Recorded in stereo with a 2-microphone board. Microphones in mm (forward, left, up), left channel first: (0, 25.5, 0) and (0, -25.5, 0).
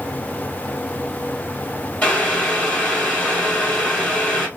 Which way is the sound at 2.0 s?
30° left (ahead or behind).